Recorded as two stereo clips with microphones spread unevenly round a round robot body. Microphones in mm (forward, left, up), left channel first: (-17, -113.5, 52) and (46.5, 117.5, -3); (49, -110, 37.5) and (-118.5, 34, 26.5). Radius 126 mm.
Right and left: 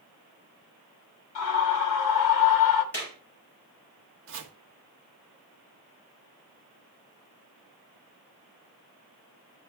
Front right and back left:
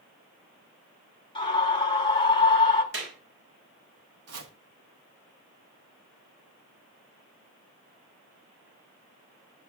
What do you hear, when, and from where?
1.4 s a scream: 110° right, 2.5 m
2.9 s a clap: 170° left, 5.5 m
4.3 s chopping: 115° left, 1.1 m